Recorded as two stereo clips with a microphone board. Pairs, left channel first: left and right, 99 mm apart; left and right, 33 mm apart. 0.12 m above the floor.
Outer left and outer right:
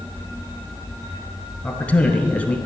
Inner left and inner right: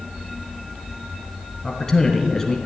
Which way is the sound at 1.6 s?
15° left (ahead or behind).